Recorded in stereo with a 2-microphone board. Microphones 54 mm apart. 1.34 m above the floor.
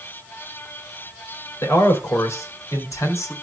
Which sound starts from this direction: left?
A man speaking, at 1.6 s.